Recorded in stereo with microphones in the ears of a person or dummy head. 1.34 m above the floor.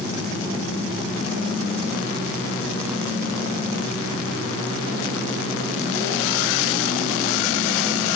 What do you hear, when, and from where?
Only background noise.